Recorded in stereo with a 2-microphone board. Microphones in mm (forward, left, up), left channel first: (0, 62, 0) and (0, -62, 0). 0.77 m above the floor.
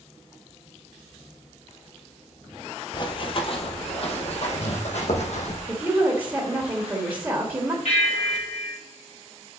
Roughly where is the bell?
Left.